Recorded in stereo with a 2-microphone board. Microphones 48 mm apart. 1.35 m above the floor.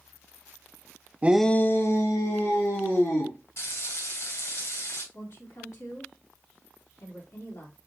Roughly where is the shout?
Right.